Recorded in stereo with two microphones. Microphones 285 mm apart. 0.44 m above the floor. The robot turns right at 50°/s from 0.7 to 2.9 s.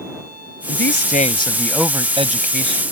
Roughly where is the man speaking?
Behind left.